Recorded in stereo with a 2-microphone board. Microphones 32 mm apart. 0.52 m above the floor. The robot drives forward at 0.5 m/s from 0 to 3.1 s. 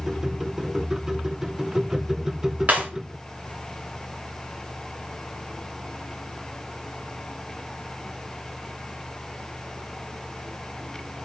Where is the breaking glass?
45° right (ahead or behind), 3.5 m.